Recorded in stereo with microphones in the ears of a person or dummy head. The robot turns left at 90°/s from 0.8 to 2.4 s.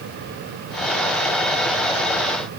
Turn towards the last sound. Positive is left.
No sound to turn to.